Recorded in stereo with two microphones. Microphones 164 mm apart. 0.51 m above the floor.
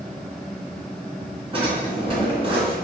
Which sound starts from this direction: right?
A drawer, at 1.5 s.